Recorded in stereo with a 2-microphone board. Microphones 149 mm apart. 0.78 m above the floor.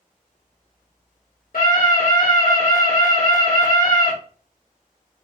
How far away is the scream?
About 1.5 m.